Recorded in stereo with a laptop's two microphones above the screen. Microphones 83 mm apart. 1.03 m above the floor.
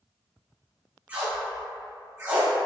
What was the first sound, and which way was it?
Tape being pulled, 20° right (ahead or behind).